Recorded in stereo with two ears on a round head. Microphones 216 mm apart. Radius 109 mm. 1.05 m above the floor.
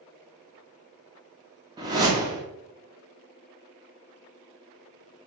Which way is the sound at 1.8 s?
15° right (ahead or behind).